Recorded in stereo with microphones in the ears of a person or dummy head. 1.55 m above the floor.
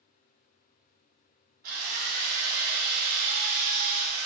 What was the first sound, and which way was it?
A drill, 50° right (ahead or behind).